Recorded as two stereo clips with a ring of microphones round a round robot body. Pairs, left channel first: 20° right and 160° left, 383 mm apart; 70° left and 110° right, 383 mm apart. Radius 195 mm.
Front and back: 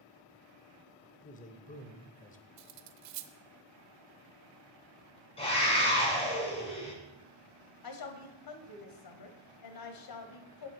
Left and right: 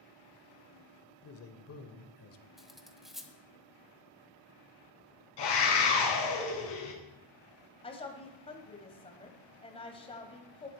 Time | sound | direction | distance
1.2 | a man speaking | 40° left | 1.2 m
2.6 | cutlery clinking | 160° left | 0.8 m
5.4 | a scream | 50° left | 4.5 m
7.8 | a woman speaking | 5° right | 1.8 m